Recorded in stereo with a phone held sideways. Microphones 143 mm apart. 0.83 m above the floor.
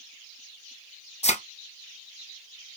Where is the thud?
50° left (ahead or behind), 1.2 m.